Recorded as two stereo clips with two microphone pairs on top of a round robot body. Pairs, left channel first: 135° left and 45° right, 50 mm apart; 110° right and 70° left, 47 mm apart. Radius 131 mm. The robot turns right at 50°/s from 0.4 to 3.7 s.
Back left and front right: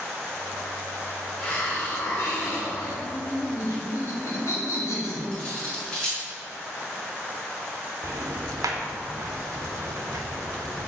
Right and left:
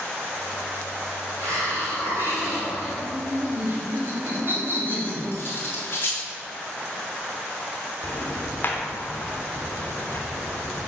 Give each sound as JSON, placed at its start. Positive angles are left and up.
{"t": 1.4, "sound": "a hiss", "azimuth_deg": 60, "distance_m": 2.5}
{"t": 3.0, "sound": "laughter", "azimuth_deg": 80, "distance_m": 2.0}
{"t": 5.3, "sound": "cutlery clinking", "azimuth_deg": -155, "distance_m": 1.6}
{"t": 8.0, "sound": "ticking", "azimuth_deg": -60, "distance_m": 0.7}